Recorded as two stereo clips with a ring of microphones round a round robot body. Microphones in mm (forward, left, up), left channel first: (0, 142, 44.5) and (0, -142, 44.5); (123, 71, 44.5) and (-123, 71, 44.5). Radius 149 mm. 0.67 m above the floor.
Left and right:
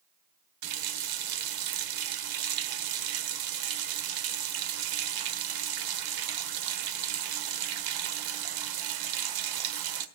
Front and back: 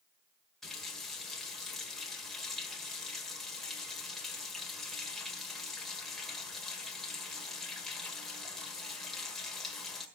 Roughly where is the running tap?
Right.